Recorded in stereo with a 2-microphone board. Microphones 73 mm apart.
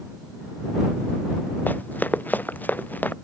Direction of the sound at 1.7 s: 25° left (ahead or behind).